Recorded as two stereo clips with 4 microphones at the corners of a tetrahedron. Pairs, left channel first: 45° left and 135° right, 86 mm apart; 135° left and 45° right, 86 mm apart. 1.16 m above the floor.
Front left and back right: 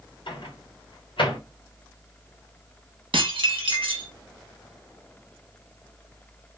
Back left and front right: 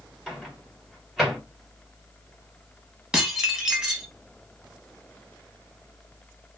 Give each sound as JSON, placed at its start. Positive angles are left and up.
{"t": 0.3, "sound": "a microwave", "azimuth_deg": 40, "distance_m": 1.1}
{"t": 3.1, "sound": "dishes clattering", "azimuth_deg": -125, "distance_m": 0.8}